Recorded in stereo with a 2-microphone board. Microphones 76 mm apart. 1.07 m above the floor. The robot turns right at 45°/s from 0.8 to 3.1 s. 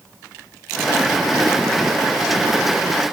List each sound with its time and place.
Only background noise.